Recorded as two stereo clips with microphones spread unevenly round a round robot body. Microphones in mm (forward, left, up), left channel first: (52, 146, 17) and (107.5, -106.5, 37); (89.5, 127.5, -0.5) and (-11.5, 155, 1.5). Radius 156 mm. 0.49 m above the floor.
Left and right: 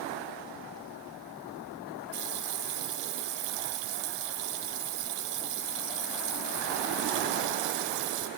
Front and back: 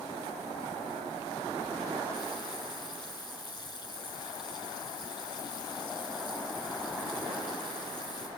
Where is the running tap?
90° right, 2 m.